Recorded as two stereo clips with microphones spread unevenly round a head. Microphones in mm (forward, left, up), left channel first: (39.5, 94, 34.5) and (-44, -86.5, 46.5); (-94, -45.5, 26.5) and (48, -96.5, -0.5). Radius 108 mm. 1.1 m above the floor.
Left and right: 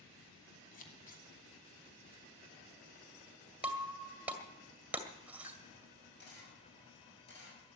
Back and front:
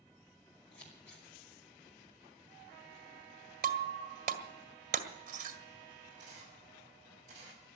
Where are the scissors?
115° left, 3 m.